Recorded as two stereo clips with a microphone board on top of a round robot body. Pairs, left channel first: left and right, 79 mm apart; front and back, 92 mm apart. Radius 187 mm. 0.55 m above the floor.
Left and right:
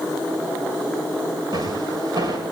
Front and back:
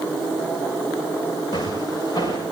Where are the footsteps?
55° right, 9.5 m.